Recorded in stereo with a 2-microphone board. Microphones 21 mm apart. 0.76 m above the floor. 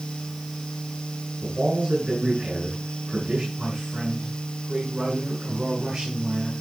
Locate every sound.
1.4 s a man speaking: 55° right (ahead or behind), 8 m
3.6 s a man speaking: 55° right (ahead or behind), 7 m